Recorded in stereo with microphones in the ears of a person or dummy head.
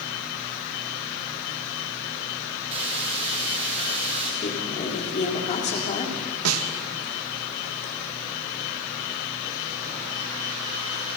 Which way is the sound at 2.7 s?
35° right (ahead or behind).